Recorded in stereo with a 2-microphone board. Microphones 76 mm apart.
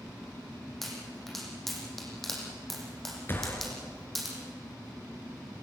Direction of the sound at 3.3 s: 30° left (ahead or behind).